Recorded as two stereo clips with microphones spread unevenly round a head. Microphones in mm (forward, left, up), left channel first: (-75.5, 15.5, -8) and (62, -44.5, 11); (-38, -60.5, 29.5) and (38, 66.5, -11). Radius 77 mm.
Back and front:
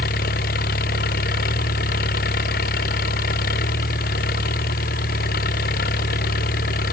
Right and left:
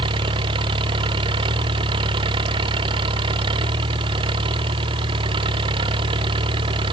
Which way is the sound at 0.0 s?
120° left.